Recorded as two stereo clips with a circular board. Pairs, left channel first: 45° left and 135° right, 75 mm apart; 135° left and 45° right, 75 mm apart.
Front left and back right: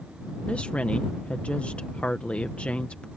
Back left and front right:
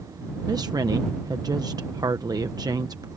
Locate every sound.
0.5 s a woman speaking: 25° right